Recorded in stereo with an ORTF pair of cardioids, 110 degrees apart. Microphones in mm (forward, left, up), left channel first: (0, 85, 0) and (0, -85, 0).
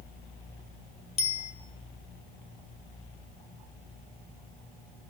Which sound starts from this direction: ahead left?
A bicycle bell, at 1.2 s.